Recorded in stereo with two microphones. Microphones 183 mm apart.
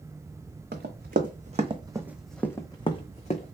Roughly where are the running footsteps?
Right.